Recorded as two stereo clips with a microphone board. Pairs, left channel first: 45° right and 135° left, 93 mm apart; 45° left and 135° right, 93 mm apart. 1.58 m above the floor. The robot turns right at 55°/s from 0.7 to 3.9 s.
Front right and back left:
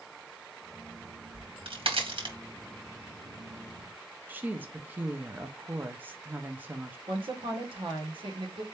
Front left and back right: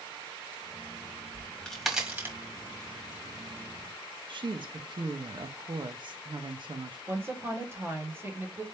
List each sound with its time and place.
1.3 s a crack: 105° left, 1.4 m; by 2.4 s 160° left, 1.4 m
4.3 s a woman speaking: 155° right, 0.8 m
7.1 s a woman speaking: 160° left, 1.5 m